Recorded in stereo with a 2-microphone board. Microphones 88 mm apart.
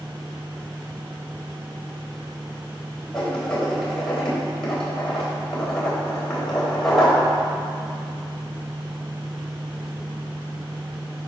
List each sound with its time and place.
3.1 s writing: 5° left (ahead or behind), 4 m